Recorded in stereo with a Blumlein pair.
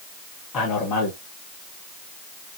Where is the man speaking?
35° left, 1.4 m.